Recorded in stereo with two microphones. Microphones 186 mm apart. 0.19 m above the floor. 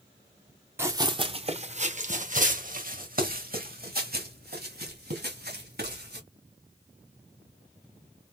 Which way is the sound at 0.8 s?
15° right (ahead or behind).